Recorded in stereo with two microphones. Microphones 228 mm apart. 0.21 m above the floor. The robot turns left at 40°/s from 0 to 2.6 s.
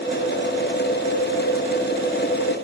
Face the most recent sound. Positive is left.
No sound to turn to.